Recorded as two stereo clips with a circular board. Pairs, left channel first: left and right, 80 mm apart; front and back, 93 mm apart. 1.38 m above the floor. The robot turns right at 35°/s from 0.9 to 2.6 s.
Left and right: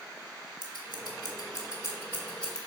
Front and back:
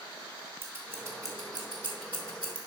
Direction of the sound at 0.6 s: 115° left.